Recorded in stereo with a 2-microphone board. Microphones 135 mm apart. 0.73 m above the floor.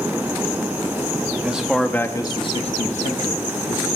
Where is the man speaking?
10° right (ahead or behind), 1.1 m; by 3.9 s 65° left (ahead or behind), 1.8 m.